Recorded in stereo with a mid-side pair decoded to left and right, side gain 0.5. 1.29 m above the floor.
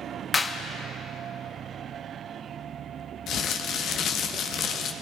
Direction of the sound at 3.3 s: 65° left.